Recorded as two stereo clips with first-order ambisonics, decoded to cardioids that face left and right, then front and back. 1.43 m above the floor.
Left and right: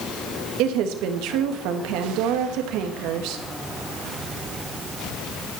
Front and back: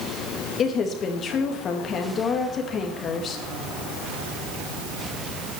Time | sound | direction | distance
0.6 | a woman speaking | 60° right | 2.5 m